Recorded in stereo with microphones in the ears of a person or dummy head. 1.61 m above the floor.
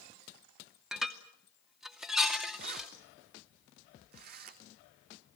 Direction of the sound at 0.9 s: Centre (ahead or behind).